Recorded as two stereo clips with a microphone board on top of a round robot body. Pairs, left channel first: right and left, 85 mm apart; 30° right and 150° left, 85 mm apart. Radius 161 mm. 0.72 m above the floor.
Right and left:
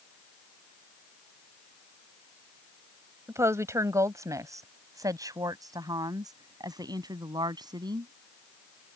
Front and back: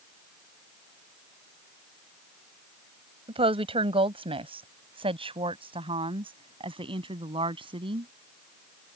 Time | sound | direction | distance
3.3 | a woman speaking | 150° left | ?